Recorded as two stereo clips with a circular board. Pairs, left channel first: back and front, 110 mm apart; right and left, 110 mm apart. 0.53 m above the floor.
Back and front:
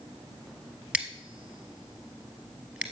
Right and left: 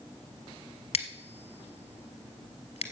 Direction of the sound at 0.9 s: 80° right.